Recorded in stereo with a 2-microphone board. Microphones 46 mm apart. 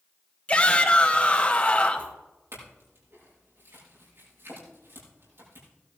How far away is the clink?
About 6.5 m.